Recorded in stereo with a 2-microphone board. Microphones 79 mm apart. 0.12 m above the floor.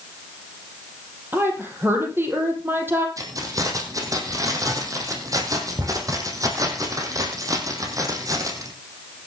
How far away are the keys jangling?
About 3 m.